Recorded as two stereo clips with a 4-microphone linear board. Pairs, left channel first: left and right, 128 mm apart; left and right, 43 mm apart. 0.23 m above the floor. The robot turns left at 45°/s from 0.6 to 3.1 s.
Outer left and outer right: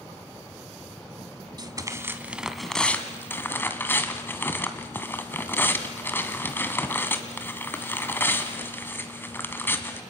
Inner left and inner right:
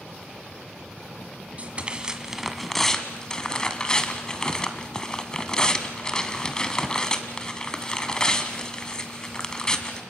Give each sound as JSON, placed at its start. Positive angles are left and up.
{"t": 1.6, "sound": "tearing paper", "azimuth_deg": -135, "distance_m": 1.8}